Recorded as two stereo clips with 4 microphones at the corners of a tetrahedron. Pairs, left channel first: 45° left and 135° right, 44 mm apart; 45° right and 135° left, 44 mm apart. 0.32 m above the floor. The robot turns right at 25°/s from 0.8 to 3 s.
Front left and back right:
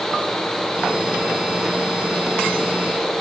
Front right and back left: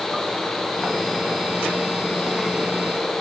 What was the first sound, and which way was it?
Only background noise.